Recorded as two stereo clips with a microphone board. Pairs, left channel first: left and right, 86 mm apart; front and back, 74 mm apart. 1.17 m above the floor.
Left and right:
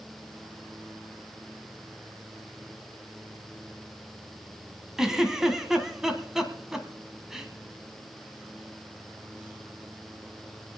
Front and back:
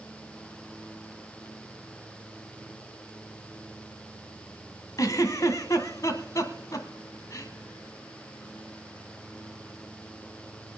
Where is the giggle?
10° right, 1.5 m.